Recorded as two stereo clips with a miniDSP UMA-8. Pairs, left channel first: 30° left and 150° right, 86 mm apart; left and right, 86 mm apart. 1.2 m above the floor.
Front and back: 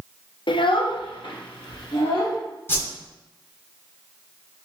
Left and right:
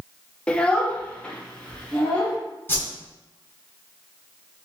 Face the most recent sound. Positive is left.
turn(degrees=60)